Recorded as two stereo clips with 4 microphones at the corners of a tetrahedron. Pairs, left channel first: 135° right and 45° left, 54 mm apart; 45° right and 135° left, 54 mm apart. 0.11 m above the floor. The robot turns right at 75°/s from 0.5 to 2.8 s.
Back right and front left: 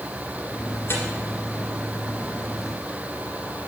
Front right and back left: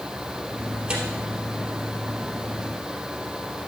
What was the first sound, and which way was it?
Tearing paper, 170° right.